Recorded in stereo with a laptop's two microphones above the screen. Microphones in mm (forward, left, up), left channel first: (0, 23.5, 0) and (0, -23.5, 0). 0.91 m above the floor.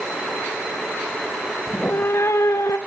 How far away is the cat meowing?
About 0.6 m.